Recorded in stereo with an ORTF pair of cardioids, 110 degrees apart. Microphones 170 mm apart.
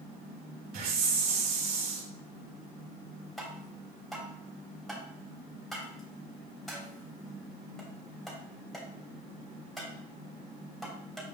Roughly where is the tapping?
Ahead.